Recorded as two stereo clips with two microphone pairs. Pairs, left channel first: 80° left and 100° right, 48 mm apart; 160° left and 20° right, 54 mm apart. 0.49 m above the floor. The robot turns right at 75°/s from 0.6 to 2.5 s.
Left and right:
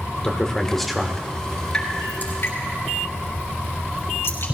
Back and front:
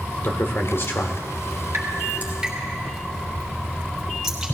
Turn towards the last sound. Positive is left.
turn(degrees=60)